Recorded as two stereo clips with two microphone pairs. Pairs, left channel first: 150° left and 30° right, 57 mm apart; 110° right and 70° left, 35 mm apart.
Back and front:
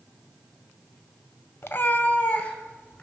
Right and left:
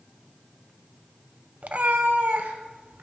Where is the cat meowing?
115° left, 0.5 m; by 3.0 s 85° left, 1.4 m.